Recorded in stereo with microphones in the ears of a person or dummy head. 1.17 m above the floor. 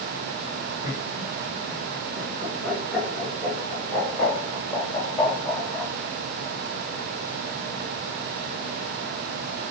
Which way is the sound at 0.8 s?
30° right (ahead or behind).